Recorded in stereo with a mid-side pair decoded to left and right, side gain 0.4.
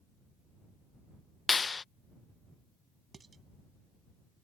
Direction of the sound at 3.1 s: 40° right.